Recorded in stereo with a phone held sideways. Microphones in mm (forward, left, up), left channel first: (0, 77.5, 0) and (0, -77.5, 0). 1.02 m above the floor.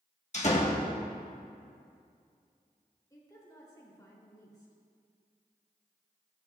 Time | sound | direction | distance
0.3 | a door slam | 45° left (ahead or behind) | 1.4 m
3.1 | a woman speaking | 20° left (ahead or behind) | 3 m